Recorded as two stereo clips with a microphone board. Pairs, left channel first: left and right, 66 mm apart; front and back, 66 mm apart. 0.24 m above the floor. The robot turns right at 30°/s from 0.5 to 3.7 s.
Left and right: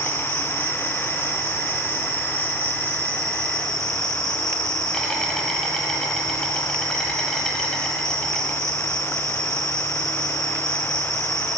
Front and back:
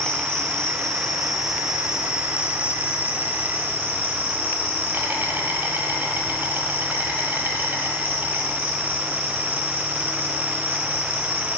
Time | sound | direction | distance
0.0 | an insect | 65° left | 1.2 m